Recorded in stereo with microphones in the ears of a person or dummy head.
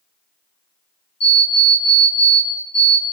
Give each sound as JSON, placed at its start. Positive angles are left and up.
{"t": 1.2, "sound": "an alarm clock", "side_deg": 50, "distance_m": 2.0}